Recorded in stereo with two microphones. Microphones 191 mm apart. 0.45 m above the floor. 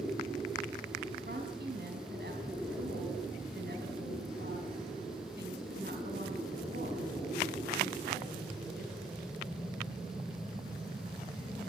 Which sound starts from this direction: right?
A woman speaking, at 1.2 s.